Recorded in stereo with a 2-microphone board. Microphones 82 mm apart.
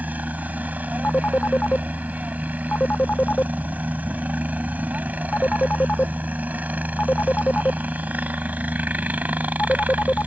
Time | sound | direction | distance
0.0 | a helicopter | 20° right (ahead or behind) | ?
1.0 | a phone ringing | 20° left (ahead or behind) | ?